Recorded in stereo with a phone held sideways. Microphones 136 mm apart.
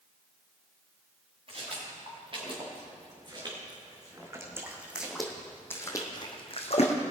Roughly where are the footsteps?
Right.